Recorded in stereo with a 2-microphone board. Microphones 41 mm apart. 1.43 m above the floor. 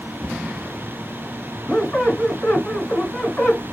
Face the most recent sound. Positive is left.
turn(degrees=30)  # may be behind; listen again after turning